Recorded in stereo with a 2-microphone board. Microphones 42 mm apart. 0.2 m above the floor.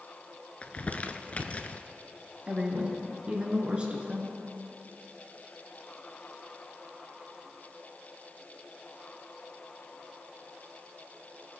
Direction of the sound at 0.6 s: 35° left (ahead or behind).